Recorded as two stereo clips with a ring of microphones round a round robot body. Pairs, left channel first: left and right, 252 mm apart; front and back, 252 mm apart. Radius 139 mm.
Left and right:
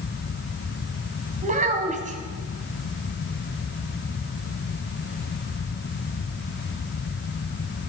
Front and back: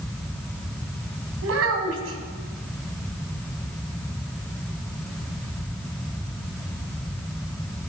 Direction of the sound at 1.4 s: 150° right.